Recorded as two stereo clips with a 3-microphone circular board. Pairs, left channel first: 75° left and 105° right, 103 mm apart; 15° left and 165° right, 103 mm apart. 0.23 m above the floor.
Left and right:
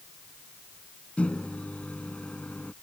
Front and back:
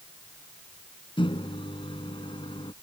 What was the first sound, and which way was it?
A microwave, straight ahead.